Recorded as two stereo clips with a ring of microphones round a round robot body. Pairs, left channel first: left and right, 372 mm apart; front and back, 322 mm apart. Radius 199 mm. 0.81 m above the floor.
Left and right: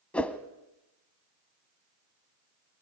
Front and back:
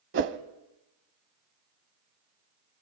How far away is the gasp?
No gasp in this recording.